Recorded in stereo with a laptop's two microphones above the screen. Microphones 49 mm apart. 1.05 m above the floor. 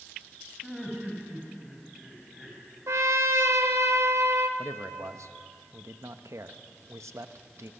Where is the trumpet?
70° right (ahead or behind), 1.3 m.